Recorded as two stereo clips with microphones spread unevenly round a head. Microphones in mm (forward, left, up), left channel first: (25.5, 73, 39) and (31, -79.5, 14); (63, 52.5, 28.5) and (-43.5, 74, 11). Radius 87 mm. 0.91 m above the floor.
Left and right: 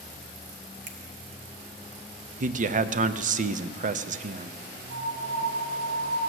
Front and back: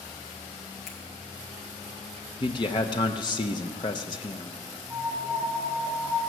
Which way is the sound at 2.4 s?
70° right.